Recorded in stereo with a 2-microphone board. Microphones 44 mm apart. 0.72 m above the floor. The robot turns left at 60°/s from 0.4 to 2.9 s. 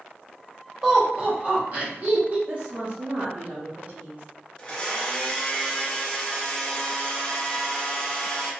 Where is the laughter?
15° right (ahead or behind), 1.1 m; by 2.4 s 35° right (ahead or behind), 1.1 m.